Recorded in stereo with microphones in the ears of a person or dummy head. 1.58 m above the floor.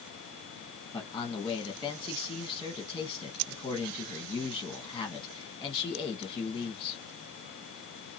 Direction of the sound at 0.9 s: 15° left (ahead or behind).